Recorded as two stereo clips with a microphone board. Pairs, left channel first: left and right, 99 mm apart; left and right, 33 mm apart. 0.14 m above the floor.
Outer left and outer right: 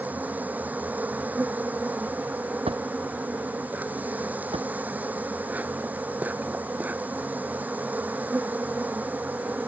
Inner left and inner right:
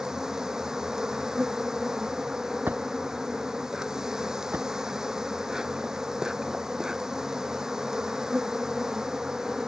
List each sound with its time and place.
0.0 s an insect: 15° right (ahead or behind)
2.7 s a drawer: 80° right